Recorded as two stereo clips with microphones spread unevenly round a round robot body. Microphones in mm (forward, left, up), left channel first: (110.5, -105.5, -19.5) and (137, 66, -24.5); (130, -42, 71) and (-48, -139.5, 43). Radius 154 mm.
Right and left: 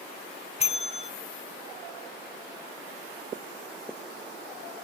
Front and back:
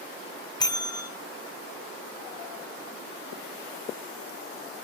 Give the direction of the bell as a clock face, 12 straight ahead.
2 o'clock.